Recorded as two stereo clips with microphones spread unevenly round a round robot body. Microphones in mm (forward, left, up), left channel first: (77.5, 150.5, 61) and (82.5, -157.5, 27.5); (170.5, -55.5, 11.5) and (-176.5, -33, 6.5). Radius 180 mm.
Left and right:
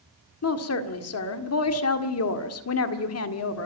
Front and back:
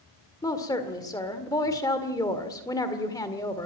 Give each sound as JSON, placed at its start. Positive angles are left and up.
{"t": 0.4, "sound": "a woman speaking", "azimuth_deg": 75, "distance_m": 1.8}